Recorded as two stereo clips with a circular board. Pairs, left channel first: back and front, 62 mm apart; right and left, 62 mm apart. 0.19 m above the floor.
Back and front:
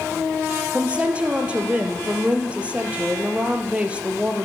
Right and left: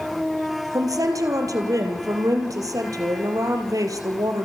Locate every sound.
0.7 s a woman speaking: 70° left, 4 m